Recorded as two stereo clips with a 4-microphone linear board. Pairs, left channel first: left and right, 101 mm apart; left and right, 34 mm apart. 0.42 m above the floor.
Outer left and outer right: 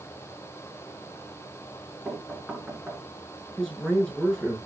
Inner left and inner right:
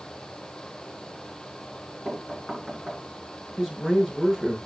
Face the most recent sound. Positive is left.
turn(degrees=5)  # may be behind; listen again after turning